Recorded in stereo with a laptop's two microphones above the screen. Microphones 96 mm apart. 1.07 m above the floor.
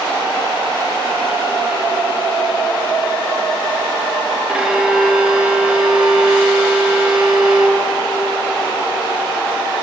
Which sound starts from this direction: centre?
A violin, at 4.5 s.